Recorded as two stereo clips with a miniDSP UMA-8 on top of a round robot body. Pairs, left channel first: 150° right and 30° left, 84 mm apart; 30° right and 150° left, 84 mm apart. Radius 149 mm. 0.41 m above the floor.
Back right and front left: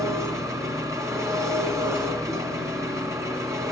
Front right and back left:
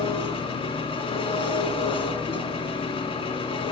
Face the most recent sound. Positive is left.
turn(degrees=-25)